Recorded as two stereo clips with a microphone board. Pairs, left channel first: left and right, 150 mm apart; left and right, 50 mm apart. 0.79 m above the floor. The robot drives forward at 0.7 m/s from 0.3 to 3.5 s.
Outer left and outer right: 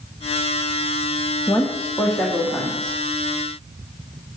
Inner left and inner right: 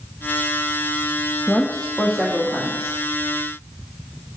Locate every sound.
1.5 s a woman speaking: 15° left (ahead or behind), 1.1 m; by 3.0 s 10° left (ahead or behind), 2 m